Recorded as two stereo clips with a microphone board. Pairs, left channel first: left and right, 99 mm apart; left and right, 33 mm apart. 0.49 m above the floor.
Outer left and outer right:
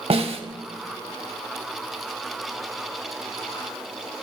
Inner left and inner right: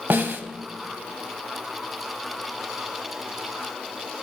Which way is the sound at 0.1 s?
70° right (ahead or behind).